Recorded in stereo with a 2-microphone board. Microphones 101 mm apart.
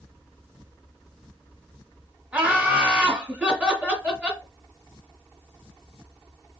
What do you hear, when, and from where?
2.3 s laughter: 15° right (ahead or behind), 1.6 m